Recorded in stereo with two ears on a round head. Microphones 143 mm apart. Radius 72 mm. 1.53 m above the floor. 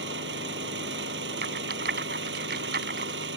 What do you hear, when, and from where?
0.0 s an engine running: 80° right
1.4 s a rattle: 70° right (ahead or behind)